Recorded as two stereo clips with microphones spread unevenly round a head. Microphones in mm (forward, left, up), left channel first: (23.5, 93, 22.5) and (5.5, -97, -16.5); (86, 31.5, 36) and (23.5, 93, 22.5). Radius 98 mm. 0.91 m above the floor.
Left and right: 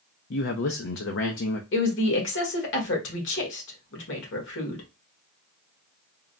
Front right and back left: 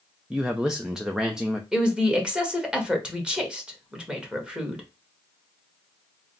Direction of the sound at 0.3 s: 55° left.